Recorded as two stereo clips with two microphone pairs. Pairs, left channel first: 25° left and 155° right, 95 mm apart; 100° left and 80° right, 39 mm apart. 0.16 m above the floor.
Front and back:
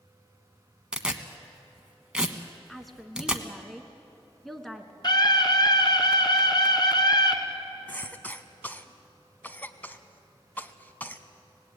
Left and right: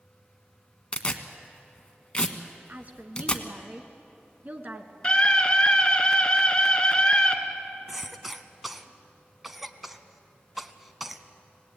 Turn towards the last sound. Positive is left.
turn(degrees=-15)